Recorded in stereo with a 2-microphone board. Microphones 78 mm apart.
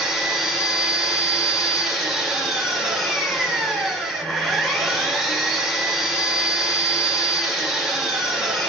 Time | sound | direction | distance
0.0 | an engine running | centre (ahead or behind) | 4 m